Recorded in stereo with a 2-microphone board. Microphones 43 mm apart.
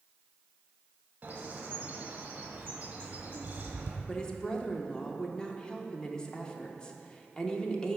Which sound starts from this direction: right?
A bird, at 1.2 s.